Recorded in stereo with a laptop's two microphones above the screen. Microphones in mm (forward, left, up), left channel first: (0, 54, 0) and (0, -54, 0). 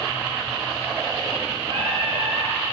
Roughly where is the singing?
Right.